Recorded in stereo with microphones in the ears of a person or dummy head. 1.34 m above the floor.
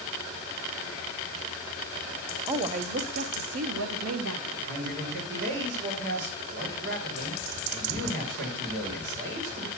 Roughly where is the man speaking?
Right.